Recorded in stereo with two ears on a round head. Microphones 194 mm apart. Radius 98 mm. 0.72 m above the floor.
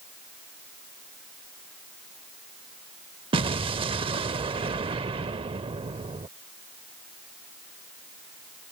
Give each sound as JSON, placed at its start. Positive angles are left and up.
{"t": 3.3, "sound": "an explosion", "side_deg": -25}